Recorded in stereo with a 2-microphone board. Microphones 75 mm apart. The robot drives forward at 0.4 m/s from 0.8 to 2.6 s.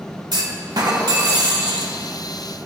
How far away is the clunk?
About 0.9 m.